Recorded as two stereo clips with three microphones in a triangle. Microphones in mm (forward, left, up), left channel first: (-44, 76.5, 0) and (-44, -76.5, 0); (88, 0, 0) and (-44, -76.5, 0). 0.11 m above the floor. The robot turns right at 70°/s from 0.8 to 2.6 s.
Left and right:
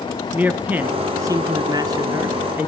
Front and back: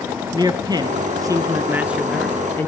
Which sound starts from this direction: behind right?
A man speaking, at 0.3 s.